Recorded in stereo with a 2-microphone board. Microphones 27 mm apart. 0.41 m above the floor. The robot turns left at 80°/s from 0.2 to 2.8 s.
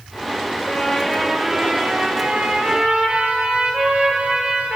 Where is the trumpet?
60° left, 6 m; by 4.8 s 120° right, 6 m.